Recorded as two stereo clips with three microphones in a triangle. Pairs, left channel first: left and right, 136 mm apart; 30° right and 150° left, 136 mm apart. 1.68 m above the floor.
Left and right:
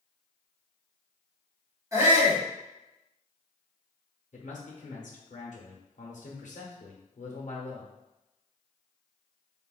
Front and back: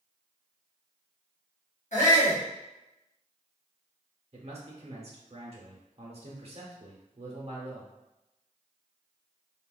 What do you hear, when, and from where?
1.9 s a shout: 25° right, 1.2 m
4.3 s a man speaking: 110° left, 0.6 m